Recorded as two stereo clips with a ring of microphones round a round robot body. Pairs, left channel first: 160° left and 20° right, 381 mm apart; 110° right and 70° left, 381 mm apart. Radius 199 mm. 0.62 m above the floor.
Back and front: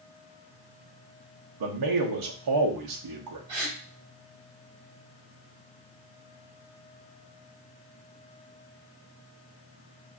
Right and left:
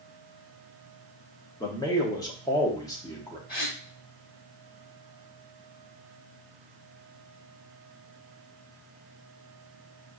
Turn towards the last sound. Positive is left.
turn(degrees=-45)